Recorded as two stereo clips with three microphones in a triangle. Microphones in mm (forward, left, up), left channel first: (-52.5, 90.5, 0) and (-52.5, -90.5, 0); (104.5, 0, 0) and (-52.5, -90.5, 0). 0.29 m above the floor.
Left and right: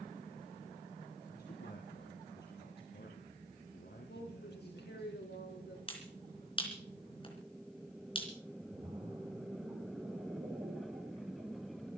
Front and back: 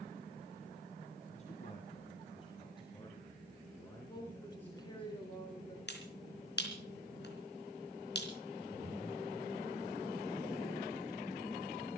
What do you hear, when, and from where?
1.3 s a man speaking: 75° left, 2.5 m; by 5.1 s 115° left, 3.5 m
4.1 s a woman speaking: 95° left, 4 m
5.9 s a finger snap: 30° left, 3.5 m
8.7 s a splash: 35° right, 6 m